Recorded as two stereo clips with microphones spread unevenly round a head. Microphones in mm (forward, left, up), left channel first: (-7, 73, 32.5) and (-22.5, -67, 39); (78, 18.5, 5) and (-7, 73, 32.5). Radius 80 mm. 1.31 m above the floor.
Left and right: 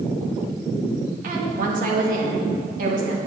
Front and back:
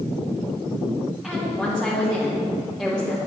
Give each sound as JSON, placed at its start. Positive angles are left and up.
{"t": 1.2, "sound": "a woman speaking", "azimuth_deg": -125, "distance_m": 2.5}